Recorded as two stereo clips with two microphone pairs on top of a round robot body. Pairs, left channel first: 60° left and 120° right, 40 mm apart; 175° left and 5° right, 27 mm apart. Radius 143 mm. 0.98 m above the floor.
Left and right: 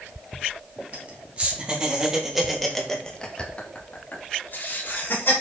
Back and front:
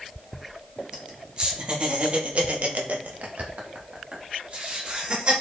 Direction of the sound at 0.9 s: 65° right.